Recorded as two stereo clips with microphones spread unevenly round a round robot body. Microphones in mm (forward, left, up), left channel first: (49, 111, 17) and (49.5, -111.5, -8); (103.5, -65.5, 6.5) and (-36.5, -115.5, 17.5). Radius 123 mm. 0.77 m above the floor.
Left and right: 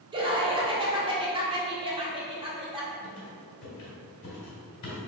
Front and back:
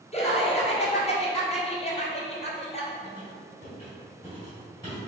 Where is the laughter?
25° right, 1.6 m.